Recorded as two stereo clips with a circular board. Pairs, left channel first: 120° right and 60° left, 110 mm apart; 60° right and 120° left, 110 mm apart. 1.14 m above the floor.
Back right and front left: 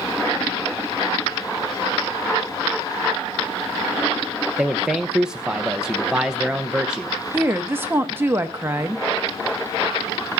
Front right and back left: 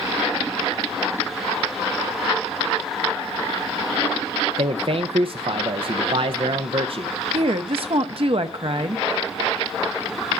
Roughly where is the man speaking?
Behind left.